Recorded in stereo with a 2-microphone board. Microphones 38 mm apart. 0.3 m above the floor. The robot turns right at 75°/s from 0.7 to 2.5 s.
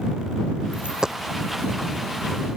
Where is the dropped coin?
40° right (ahead or behind); by 1.1 s 10° right (ahead or behind).